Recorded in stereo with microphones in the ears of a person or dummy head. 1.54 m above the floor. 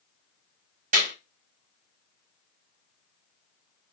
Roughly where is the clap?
Right.